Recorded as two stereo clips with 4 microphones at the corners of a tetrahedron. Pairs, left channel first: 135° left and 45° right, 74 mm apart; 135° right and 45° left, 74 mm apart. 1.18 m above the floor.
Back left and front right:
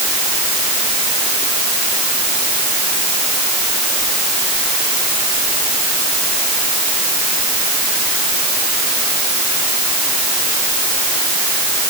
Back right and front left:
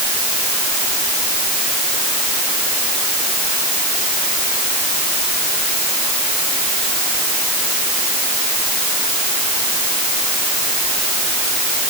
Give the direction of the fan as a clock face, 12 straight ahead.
I don't hear a fan.